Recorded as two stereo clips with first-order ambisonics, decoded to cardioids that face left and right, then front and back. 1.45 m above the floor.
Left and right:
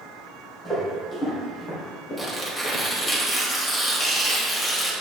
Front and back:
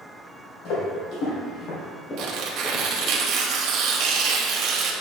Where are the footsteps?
15° left, 2.5 m; by 3.2 s 65° left, 2 m.